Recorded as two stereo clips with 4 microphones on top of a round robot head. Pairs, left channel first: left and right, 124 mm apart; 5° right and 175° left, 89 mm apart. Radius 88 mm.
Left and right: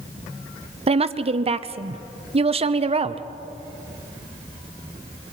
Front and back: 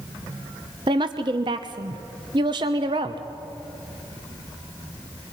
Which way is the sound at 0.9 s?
130° right.